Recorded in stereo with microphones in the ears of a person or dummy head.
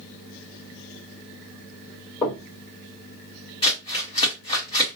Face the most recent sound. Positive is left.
turn(degrees=30)  # may be behind; listen again after turning